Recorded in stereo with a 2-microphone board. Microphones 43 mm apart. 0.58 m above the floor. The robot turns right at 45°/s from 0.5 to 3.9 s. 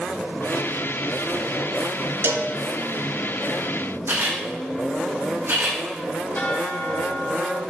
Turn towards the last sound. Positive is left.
turn(degrees=50)  # may be behind; listen again after turning